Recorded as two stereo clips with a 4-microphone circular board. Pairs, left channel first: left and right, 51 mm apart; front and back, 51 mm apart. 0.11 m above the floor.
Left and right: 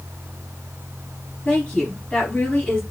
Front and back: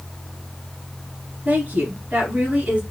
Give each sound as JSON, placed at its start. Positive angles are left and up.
{"t": 1.4, "sound": "a woman speaking", "azimuth_deg": 150, "distance_m": 1.8}